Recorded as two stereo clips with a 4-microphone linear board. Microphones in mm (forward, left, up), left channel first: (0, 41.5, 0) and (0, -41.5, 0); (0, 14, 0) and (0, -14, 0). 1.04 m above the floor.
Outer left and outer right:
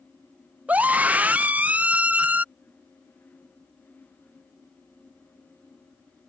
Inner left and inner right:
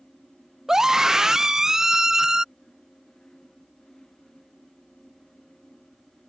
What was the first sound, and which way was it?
A scream, 20° right (ahead or behind).